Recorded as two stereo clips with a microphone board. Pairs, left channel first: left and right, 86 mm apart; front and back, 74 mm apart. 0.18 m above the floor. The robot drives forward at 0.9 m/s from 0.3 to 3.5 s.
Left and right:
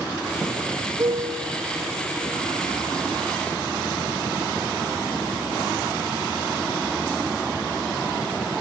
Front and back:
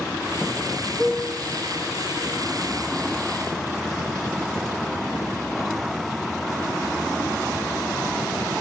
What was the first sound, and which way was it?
A piano, 70° right.